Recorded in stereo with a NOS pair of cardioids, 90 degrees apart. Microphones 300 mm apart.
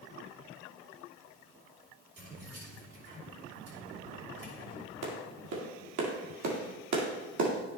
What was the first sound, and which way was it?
Keys jangling, 50° right.